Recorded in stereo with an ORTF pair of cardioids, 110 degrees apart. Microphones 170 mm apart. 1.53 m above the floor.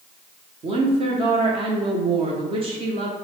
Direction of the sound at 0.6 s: 35° right.